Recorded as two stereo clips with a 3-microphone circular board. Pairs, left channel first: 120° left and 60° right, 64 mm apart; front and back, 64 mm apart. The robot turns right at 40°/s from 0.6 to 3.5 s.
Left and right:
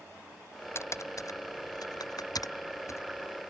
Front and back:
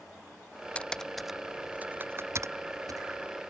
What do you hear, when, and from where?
0.8 s typing on a keyboard: 70° left; by 3.0 s 160° left